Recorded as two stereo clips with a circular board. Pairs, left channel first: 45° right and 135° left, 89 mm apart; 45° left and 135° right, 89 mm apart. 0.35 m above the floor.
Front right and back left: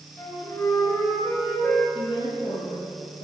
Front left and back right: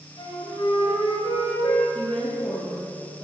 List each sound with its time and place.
0.2 s a flute: 10° left, 5.5 m
1.9 s a woman speaking: 35° right, 9.5 m